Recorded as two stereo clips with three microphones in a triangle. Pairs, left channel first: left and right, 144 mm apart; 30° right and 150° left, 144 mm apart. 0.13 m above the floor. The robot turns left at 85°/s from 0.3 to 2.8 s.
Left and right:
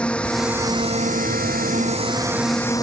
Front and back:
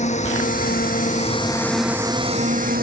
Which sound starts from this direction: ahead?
A drone, at 0.0 s.